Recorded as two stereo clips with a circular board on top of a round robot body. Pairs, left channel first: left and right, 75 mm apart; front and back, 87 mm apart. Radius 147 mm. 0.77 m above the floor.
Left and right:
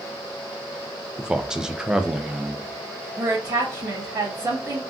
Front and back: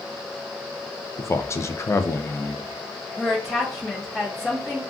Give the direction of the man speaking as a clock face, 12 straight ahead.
1 o'clock.